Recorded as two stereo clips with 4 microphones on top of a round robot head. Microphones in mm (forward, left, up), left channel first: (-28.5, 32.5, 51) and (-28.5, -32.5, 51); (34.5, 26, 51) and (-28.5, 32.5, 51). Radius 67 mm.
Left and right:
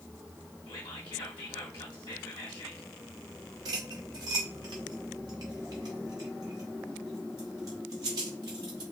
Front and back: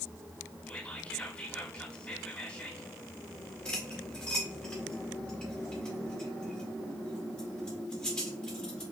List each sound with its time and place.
0.7 s whispering: 60° left, 0.9 m
3.6 s cutlery clinking: 80° right, 0.9 m